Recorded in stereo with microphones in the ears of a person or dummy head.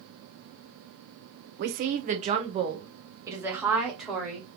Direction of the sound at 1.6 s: 45° right (ahead or behind).